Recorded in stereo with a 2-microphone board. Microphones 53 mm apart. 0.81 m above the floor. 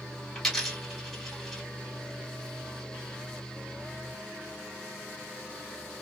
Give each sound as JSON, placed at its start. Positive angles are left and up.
{"t": 0.3, "sound": "a dropped coin", "side_deg": 5, "distance_m": 1.6}